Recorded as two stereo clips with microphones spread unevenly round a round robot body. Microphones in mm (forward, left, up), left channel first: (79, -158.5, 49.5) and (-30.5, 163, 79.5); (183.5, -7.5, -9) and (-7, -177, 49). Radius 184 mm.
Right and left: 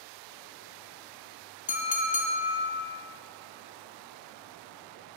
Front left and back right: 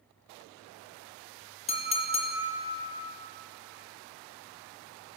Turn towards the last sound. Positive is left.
turn(degrees=-10)